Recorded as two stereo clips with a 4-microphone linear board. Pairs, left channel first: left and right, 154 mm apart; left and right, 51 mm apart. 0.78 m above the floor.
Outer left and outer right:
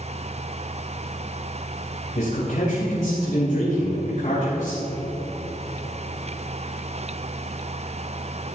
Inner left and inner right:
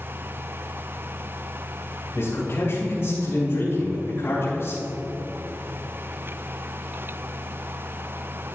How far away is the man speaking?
About 3.5 m.